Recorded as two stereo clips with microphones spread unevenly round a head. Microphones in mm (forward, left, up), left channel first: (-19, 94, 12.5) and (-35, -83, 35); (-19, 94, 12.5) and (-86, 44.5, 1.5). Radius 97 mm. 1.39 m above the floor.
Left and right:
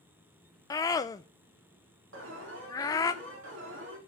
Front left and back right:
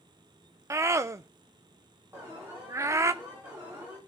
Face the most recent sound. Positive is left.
turn(degrees=-65)